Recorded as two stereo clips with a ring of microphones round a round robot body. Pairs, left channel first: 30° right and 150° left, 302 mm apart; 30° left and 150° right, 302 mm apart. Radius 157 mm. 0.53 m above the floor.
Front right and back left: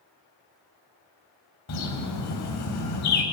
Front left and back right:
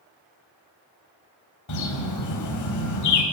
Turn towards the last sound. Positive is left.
turn(degrees=5)